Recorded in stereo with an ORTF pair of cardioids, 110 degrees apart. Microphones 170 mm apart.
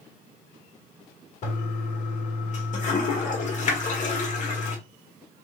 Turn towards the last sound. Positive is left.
turn(degrees=45)